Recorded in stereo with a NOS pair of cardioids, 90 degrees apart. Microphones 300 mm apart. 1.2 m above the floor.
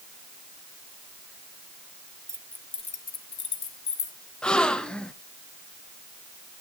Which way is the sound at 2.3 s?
10° right.